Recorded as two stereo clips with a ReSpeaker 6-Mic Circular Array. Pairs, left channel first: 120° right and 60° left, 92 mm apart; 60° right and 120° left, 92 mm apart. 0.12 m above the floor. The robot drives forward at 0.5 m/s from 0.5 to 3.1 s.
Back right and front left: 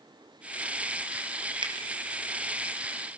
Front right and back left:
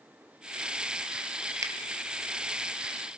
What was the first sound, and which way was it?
A finger snap, 70° left.